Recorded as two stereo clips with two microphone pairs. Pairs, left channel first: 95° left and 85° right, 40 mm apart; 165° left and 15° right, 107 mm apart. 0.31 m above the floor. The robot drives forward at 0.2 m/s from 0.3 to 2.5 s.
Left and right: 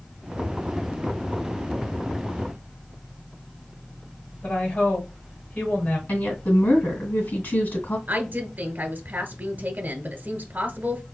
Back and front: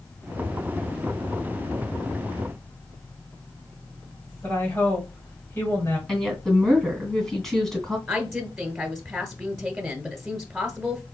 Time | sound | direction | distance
4.4 | a woman speaking | 100° left | 2 m
6.1 | a woman speaking | 80° left | 2 m
8.1 | a woman speaking | 90° right | 1.3 m